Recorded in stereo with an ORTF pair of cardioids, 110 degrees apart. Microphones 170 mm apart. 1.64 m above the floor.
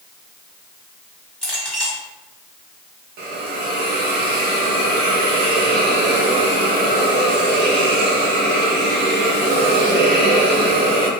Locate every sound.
1.4 s a clink: 10° left, 1.8 m
3.2 s a hiss: 70° right, 0.9 m